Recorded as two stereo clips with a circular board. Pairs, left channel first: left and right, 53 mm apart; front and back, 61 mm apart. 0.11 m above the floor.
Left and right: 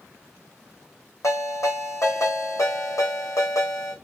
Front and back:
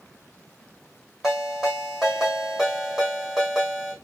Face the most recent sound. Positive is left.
turn(degrees=95)